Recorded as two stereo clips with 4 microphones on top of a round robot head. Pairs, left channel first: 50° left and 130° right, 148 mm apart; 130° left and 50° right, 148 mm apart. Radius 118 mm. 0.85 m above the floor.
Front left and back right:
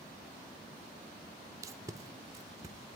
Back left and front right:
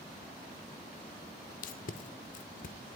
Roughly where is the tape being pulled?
Behind.